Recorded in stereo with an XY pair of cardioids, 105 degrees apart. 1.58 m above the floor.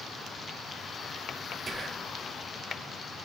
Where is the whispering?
15° right, 0.8 m.